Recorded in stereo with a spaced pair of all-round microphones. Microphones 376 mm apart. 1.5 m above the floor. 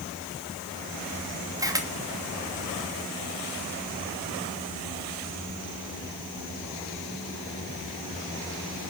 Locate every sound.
1.6 s a camera shutter: 10° right (ahead or behind), 2.5 m